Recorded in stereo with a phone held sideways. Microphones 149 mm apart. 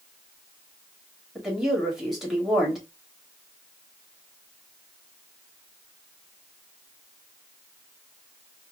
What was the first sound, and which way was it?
A woman speaking, 5° right (ahead or behind).